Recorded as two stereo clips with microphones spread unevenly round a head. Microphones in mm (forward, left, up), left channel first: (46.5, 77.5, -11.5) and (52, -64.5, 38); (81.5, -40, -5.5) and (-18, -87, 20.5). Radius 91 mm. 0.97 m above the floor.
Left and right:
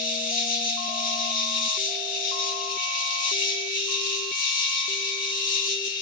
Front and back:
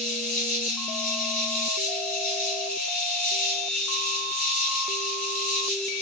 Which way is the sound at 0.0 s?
65° left.